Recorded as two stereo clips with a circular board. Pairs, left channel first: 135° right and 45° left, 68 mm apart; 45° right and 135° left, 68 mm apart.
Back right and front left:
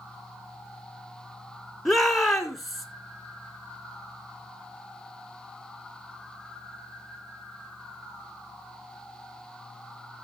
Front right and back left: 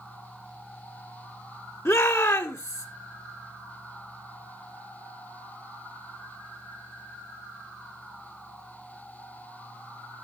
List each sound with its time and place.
1.9 s a shout: 45° right, 1.9 m